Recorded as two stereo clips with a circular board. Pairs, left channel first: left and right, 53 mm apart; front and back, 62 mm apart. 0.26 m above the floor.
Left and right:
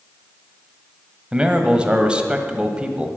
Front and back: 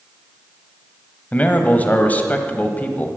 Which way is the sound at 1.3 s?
35° right.